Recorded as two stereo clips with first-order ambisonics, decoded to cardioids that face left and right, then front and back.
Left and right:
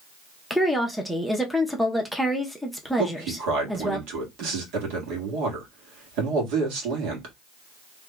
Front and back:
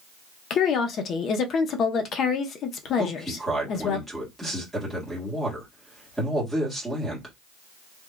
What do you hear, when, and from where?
0.5 s a woman speaking: straight ahead, 0.6 m
3.0 s a man speaking: 95° right, 1.6 m